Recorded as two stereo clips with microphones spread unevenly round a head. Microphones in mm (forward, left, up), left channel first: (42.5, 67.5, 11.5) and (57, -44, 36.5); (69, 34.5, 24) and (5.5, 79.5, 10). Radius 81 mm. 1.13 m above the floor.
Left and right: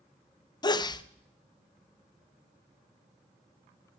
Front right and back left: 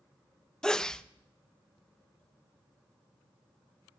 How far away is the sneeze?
About 0.8 m.